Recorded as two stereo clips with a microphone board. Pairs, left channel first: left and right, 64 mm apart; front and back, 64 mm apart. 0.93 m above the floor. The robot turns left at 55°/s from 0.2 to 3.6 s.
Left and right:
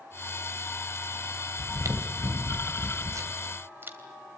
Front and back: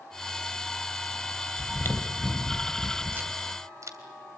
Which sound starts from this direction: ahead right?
Chewing, at 1.6 s.